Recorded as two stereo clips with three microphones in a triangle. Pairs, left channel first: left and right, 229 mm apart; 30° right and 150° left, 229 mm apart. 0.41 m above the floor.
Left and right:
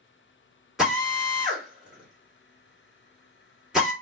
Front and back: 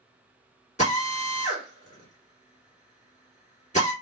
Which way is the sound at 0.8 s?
5° right.